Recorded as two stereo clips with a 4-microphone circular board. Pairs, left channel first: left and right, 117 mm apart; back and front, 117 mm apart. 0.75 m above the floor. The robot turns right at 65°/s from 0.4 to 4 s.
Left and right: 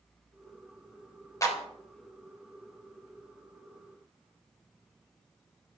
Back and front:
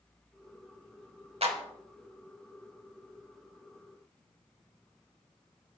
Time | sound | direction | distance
1.4 | a clap | 30° left | 3 m